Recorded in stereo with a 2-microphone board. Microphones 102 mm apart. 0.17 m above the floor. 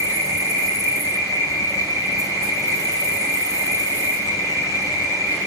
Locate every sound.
0.0 s an insect: 35° left (ahead or behind), 0.9 m